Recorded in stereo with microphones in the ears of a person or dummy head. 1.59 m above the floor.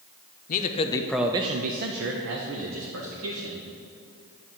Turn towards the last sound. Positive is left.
turn(degrees=-85)